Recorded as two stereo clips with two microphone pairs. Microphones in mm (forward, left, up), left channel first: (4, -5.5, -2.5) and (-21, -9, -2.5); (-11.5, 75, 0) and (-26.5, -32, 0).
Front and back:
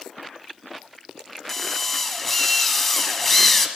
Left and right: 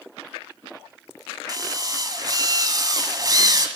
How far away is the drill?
About 1.4 m.